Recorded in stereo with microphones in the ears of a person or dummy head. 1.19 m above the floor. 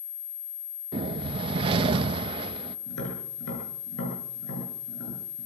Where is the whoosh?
30° right (ahead or behind), 1.1 m.